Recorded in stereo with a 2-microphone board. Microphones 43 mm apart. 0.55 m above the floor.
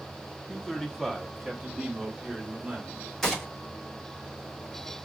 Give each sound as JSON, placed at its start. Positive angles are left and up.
{"t": 0.5, "sound": "a man speaking", "side_deg": 20, "distance_m": 0.8}
{"t": 3.2, "sound": "a gunshot", "side_deg": 10, "distance_m": 1.6}